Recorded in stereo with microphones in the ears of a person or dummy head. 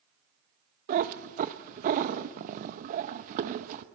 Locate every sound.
0.9 s a cat meowing: 40° right (ahead or behind), 0.7 m